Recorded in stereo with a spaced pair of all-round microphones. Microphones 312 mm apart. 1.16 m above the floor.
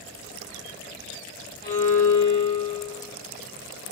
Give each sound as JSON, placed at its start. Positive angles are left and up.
{"t": 1.6, "sound": "a violin", "side_deg": 30, "distance_m": 0.9}